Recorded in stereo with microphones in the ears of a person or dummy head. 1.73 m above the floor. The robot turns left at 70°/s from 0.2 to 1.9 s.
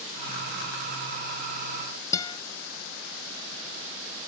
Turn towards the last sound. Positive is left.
turn(degrees=20)  # may be behind; listen again after turning